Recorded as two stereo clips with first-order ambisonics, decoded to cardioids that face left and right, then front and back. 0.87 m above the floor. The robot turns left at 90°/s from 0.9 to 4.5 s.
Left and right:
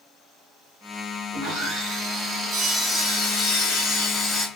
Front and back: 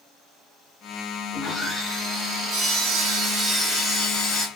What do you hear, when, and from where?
1.3 s sawing: 55° right, 1.2 m; by 4.5 s 20° left, 1.2 m